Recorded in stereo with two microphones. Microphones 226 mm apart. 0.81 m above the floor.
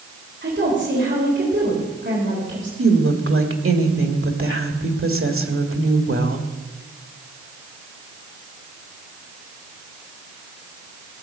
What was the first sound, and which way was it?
A woman speaking, 50° right (ahead or behind).